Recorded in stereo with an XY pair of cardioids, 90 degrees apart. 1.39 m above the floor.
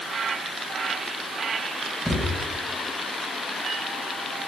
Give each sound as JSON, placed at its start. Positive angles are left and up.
{"t": 2.0, "sound": "a thud", "azimuth_deg": -5, "distance_m": 4.0}